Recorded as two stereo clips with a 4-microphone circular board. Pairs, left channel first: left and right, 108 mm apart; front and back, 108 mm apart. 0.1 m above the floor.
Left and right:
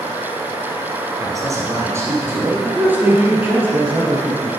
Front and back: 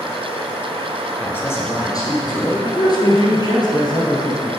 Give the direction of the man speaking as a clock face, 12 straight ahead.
2 o'clock.